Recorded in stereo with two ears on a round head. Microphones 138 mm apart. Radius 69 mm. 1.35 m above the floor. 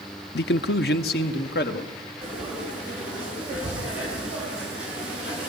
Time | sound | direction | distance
0.3 | a man speaking | 75° left (ahead or behind) | 0.6 m
2.2 | frying | 5° right (ahead or behind) | 6.5 m